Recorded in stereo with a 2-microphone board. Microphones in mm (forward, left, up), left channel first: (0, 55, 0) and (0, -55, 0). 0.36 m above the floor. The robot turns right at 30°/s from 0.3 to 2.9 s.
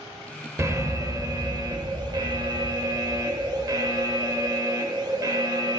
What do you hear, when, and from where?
0.6 s an alarm: 135° right, 0.7 m; by 5.8 s 65° right, 0.7 m